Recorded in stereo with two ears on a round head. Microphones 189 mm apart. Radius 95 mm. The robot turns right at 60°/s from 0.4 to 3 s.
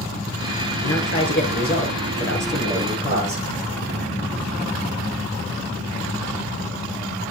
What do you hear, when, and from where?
0.8 s a man speaking: 85° left, 7.5 m; by 3.5 s 145° right, 7.5 m